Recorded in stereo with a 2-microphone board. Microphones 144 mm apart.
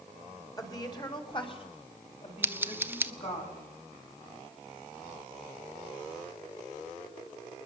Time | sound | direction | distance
0.6 | a woman speaking | 25° left (ahead or behind) | 2.5 m
2.4 | scissors | 15° right (ahead or behind) | 0.9 m